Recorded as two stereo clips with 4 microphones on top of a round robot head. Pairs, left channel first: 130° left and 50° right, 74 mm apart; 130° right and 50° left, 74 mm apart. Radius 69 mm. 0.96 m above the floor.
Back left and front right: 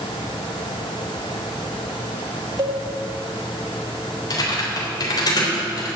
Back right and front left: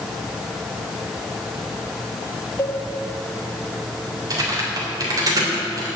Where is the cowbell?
80° right, 2 m.